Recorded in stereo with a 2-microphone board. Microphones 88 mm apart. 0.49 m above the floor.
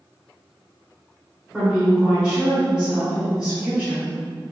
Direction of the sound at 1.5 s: 10° right (ahead or behind).